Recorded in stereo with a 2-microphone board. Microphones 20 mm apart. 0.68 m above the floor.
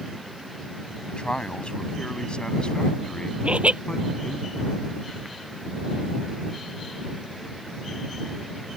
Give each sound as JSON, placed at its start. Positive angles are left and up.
{"t": 1.1, "sound": "a man speaking", "side_deg": 55}
{"t": 3.4, "sound": "laughter", "side_deg": -90}